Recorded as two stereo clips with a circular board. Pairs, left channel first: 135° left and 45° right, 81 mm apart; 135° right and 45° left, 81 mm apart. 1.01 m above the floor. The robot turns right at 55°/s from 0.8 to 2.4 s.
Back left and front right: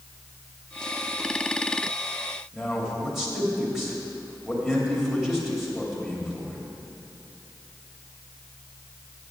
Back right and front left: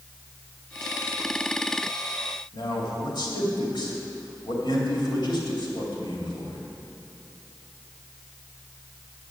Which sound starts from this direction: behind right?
A man speaking, at 2.5 s.